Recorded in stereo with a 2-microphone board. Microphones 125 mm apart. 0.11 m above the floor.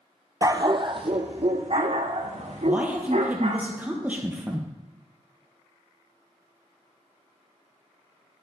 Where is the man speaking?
15° right (ahead or behind), 2.5 m.